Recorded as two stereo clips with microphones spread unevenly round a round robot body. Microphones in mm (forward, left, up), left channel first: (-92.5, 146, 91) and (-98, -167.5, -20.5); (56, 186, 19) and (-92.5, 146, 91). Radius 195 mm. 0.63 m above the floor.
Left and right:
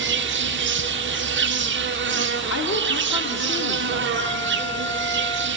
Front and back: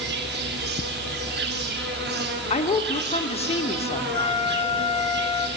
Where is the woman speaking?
20° left, 1.9 m.